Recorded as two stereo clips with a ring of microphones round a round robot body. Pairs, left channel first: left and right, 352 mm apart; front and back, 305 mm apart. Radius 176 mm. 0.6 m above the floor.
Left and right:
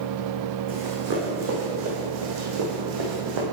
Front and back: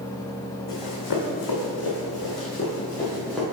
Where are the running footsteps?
25° right, 2 m; by 3.4 s 90° right, 2.0 m.